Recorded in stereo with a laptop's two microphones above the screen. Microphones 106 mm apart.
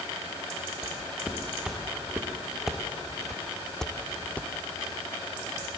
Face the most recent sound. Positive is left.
turn(degrees=15)  # may be behind; listen again after turning